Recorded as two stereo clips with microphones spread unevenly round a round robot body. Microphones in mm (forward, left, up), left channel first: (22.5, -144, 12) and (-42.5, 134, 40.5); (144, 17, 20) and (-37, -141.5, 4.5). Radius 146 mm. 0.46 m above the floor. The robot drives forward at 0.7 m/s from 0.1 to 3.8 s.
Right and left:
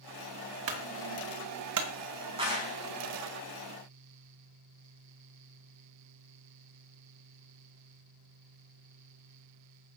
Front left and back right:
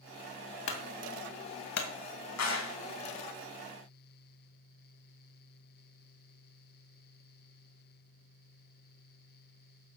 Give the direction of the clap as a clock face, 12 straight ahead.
11 o'clock.